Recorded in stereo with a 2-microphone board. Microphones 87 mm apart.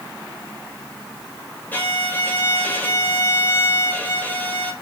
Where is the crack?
I don't hear a crack.